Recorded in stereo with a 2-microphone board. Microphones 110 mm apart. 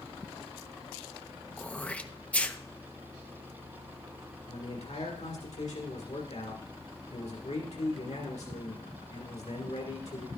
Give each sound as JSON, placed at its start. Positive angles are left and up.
{"t": 1.6, "sound": "throat clearing", "side_deg": 10, "distance_m": 0.6}
{"t": 4.5, "sound": "a man speaking", "side_deg": 85, "distance_m": 1.8}